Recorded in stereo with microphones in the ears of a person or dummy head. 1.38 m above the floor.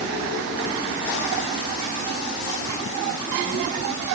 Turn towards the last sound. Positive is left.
No sound to turn to.